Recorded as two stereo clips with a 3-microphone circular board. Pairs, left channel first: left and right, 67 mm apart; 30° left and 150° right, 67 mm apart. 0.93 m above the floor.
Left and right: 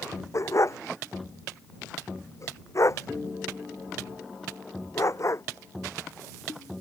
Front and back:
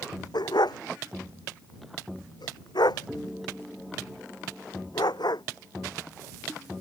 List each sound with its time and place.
0.3 s a dog barking: 45° left